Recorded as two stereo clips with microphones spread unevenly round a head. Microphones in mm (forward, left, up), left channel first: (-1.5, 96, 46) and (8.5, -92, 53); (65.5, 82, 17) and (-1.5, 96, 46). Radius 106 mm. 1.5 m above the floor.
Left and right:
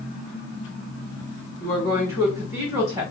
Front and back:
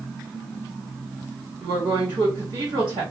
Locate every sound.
1.6 s a woman speaking: 160° right, 1.7 m